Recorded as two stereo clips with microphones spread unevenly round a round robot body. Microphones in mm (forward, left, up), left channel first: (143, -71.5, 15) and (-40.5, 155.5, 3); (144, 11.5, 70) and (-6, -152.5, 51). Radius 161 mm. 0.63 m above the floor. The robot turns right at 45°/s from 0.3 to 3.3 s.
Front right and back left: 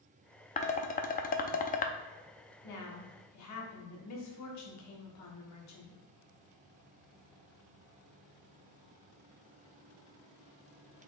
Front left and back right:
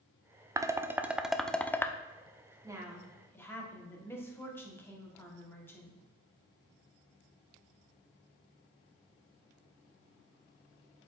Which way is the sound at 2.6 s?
65° right.